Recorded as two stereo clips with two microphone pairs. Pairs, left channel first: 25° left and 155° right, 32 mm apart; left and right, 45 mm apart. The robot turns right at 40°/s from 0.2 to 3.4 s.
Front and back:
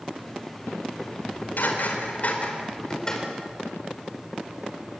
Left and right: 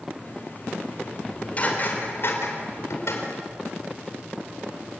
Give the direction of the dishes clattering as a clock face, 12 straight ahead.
11 o'clock.